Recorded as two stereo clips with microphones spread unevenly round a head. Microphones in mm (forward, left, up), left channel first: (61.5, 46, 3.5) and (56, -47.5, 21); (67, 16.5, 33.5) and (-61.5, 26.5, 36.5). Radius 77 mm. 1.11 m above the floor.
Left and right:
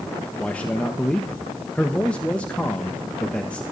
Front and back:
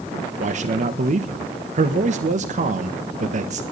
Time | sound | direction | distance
0.4 | a man speaking | 165° left | 1.4 m